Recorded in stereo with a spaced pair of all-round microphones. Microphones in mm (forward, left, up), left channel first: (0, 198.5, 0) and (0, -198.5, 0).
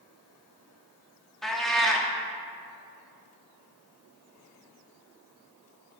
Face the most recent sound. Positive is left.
turn(degrees=0)  # may be behind; listen again after turning